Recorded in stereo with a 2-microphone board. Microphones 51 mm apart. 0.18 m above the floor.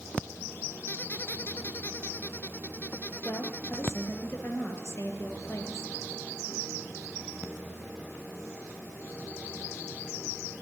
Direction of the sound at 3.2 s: 50° left (ahead or behind).